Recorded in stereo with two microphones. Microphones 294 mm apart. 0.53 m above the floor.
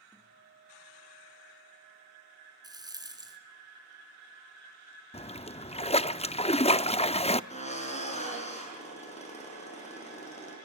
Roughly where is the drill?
Left.